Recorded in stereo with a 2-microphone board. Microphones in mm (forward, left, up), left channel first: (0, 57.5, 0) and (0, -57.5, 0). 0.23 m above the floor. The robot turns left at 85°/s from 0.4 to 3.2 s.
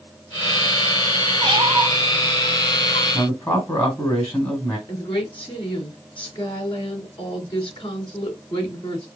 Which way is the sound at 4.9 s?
45° left (ahead or behind).